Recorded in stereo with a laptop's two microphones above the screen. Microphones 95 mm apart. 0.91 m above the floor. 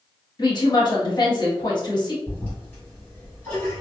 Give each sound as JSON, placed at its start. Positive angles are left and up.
{"t": 0.4, "sound": "a woman speaking", "side_deg": 50, "distance_m": 1.3}
{"t": 2.3, "sound": "a toilet flushing", "side_deg": 25, "distance_m": 1.8}